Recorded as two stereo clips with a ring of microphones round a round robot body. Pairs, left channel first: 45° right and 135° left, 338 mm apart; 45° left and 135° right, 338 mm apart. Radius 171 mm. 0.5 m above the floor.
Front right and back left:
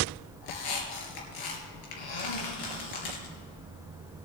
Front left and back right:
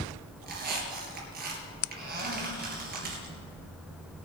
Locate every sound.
0.4 s a squeak: 70° right, 3.5 m